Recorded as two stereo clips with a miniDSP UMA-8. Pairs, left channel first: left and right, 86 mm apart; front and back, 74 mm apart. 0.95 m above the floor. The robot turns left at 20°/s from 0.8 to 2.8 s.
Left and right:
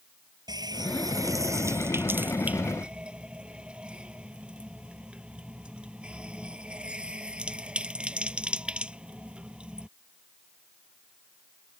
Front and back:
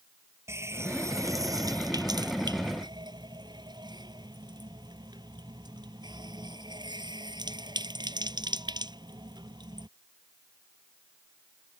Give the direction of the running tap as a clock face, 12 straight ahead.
4 o'clock.